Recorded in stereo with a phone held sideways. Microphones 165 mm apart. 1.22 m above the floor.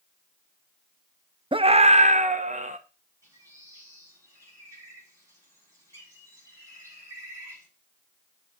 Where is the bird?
20° right (ahead or behind), 7 m.